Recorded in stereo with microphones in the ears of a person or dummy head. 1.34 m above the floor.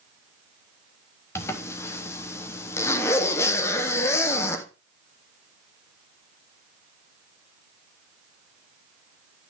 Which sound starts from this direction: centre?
A zipper, at 1.4 s.